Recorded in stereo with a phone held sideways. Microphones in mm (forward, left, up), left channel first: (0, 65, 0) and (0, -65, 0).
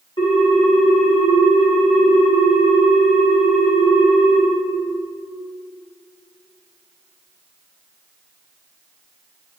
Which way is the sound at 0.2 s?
40° left (ahead or behind).